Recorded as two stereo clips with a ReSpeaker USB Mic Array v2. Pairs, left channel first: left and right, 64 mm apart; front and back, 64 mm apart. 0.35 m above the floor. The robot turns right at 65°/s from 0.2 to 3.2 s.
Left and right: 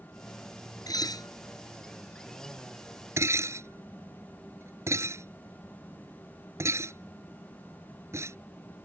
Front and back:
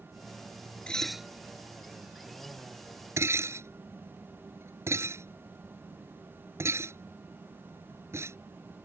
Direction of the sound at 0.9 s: 75° left.